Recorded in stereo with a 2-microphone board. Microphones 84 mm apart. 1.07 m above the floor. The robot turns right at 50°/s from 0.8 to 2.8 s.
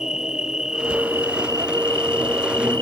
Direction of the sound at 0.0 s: 170° right.